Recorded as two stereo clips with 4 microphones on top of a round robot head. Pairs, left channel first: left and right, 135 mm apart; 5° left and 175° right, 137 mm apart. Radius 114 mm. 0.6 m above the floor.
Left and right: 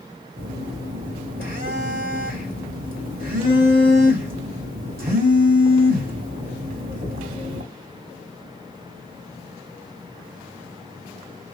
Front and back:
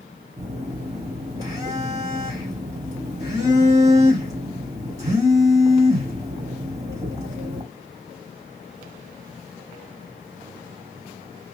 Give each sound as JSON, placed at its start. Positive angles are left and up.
{"t": 0.4, "sound": "a phone buzzing", "azimuth_deg": -105, "distance_m": 2.5}